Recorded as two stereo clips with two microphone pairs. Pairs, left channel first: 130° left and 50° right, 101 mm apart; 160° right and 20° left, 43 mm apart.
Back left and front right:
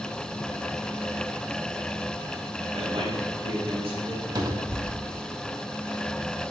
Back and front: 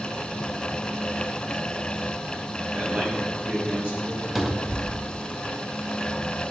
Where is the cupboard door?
60° right, 0.8 m.